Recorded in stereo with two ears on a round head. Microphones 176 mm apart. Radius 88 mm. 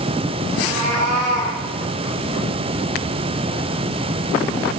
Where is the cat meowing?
45° right (ahead or behind), 4 m.